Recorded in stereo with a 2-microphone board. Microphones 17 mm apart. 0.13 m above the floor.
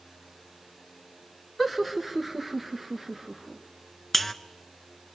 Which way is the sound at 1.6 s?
5° left (ahead or behind).